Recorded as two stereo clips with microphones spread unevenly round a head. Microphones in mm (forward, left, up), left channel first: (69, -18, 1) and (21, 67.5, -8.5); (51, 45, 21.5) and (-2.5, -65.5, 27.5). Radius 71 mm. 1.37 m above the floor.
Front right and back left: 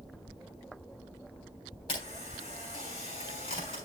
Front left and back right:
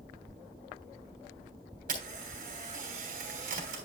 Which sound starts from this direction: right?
A camera shutter, at 1.9 s.